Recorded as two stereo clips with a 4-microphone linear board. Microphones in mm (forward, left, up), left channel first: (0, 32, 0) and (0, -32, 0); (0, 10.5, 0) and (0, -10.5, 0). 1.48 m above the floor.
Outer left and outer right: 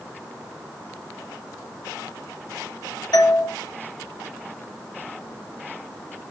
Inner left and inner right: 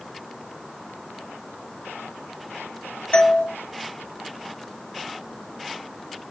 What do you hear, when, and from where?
3.1 s a doorbell: 75° left (ahead or behind), 2 m